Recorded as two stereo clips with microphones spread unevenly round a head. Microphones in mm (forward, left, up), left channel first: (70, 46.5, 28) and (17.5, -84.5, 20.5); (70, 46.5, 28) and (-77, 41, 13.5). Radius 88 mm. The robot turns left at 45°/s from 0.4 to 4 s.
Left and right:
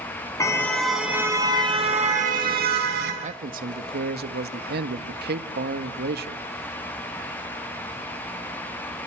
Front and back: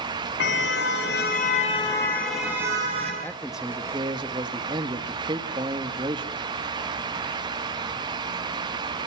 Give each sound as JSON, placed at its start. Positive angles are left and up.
{"t": 0.4, "sound": "a car horn", "azimuth_deg": 0, "distance_m": 7.0}
{"t": 3.2, "sound": "a man speaking", "azimuth_deg": -75, "distance_m": 1.7}